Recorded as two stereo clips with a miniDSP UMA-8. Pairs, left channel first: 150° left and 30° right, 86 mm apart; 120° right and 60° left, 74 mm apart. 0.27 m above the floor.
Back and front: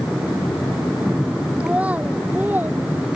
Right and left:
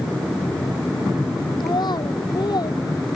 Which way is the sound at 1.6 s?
105° right.